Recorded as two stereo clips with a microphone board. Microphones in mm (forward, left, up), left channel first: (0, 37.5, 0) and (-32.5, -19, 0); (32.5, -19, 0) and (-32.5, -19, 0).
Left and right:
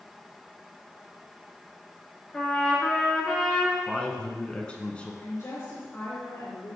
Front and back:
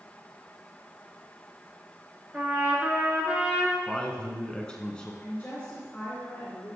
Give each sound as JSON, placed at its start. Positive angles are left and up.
{"t": 2.3, "sound": "a trumpet", "azimuth_deg": 130, "distance_m": 2.0}
{"t": 3.9, "sound": "a man speaking", "azimuth_deg": 40, "distance_m": 1.2}
{"t": 5.2, "sound": "a woman speaking", "azimuth_deg": 55, "distance_m": 2.5}